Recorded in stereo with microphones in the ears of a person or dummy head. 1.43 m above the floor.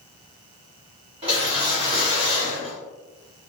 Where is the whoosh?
30° right (ahead or behind), 1.3 m.